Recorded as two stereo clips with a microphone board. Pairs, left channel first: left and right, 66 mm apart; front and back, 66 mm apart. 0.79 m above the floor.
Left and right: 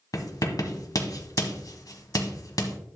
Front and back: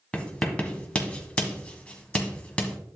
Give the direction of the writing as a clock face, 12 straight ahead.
10 o'clock.